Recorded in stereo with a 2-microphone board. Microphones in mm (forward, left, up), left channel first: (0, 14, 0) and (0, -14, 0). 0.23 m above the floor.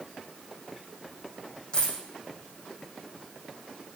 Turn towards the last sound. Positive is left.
turn(degrees=35)  # may be behind; listen again after turning